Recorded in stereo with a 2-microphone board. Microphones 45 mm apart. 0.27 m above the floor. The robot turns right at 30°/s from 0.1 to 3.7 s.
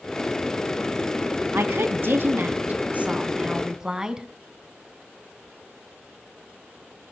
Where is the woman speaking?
80° right, 2 m; by 4.3 s 15° right, 2 m.